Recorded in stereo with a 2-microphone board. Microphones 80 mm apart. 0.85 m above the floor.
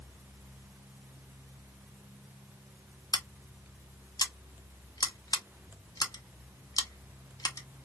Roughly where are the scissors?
Left.